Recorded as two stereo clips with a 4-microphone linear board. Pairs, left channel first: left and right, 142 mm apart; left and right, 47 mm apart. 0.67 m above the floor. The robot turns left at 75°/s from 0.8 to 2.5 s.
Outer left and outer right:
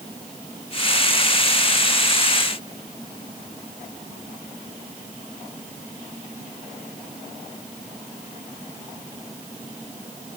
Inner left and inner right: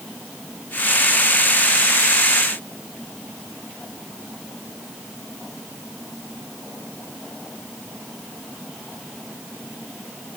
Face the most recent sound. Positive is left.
No sound to turn to.